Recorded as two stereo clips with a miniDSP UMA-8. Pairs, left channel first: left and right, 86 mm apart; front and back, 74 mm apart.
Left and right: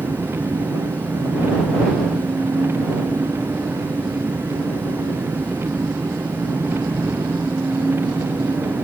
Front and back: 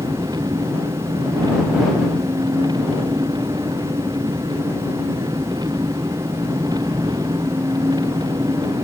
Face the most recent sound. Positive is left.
turn(degrees=-155)